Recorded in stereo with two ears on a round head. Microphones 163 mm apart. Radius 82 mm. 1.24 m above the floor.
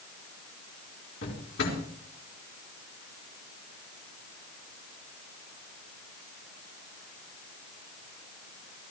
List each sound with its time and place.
1.2 s a drawer: 75° left (ahead or behind), 4.5 m